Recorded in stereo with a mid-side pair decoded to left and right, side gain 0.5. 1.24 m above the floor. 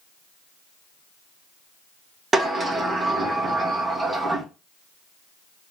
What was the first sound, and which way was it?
A sliding door, 30° right.